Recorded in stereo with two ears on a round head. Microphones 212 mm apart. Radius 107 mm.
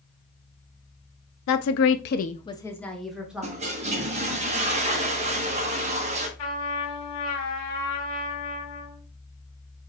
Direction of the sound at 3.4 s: 30° right (ahead or behind).